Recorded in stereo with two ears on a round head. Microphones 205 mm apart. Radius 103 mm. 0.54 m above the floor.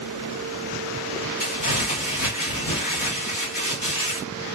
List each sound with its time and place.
1.4 s crumpling: 40° left (ahead or behind), 1.6 m